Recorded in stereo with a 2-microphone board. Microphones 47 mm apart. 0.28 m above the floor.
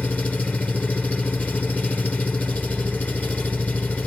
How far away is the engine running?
About 2 m.